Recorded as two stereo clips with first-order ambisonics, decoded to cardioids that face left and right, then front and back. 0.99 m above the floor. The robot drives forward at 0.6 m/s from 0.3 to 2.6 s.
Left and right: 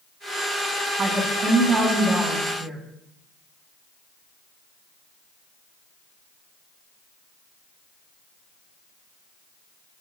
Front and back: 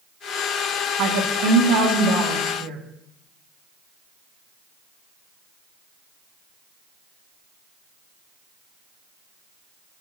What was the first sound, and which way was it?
A woman speaking, 150° right.